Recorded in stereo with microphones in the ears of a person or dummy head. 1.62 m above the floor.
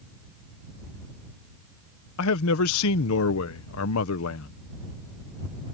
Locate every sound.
2.2 s a man speaking: 70° left (ahead or behind)